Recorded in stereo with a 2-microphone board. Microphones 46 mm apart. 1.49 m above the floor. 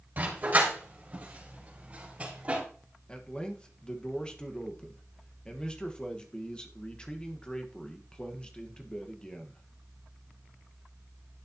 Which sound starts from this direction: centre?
A man speaking, at 3.1 s.